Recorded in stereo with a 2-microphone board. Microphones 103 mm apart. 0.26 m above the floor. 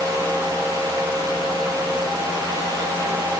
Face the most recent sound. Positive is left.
No sound to turn to.